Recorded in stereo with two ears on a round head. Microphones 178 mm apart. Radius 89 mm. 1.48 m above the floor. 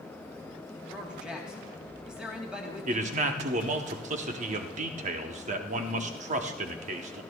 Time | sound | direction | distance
0.9 | a man speaking | 5° right (ahead or behind) | 2.5 m
2.9 | a man speaking | 40° right (ahead or behind) | 1.0 m